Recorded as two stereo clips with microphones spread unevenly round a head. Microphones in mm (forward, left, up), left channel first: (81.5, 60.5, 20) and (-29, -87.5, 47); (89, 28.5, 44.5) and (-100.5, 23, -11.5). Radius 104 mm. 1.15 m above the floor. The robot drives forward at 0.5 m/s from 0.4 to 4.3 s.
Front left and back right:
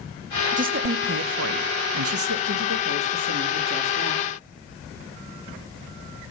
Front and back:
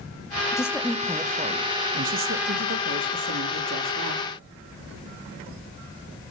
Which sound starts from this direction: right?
A woman speaking, at 0.5 s.